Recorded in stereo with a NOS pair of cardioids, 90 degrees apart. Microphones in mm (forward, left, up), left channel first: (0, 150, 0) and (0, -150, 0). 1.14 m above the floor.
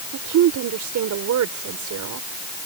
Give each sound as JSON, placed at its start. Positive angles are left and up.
{"t": 0.1, "sound": "a woman speaking", "azimuth_deg": -70}